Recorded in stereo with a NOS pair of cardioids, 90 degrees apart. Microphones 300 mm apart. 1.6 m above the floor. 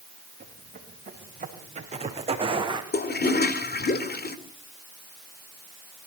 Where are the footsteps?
30° right, 6.5 m; by 2.8 s 15° right, 5 m.